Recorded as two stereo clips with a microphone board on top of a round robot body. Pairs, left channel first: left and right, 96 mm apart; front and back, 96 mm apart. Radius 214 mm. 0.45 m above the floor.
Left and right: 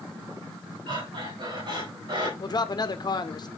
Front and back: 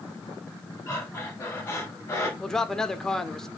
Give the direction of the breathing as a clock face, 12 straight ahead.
2 o'clock.